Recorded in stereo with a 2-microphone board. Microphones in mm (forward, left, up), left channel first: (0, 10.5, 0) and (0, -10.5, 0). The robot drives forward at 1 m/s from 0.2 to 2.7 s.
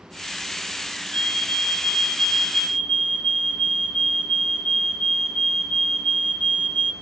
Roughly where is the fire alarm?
Left.